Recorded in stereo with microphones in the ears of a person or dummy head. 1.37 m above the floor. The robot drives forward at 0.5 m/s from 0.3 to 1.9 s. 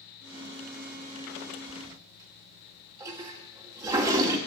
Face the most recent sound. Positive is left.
turn(degrees=-20)  # may be behind; listen again after turning